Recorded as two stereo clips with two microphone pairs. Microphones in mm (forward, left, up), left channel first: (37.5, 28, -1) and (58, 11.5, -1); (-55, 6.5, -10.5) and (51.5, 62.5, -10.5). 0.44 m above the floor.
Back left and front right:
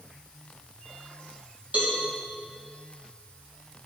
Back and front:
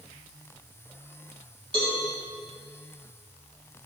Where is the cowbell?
15° right, 2.5 m.